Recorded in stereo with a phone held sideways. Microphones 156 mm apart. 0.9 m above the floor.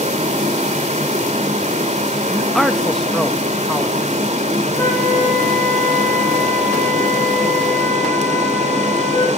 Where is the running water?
50° right (ahead or behind), 2.5 m.